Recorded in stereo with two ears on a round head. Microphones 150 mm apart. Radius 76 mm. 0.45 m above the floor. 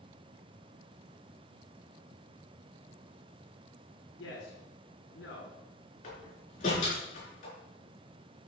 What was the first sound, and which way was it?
A man speaking, 80° left.